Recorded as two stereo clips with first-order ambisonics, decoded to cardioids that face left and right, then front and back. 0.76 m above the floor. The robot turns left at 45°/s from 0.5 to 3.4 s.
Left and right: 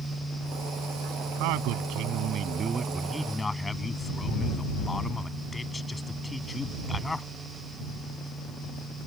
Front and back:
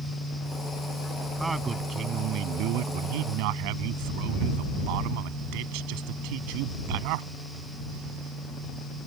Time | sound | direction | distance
1.4 | a man speaking | 100° right | ?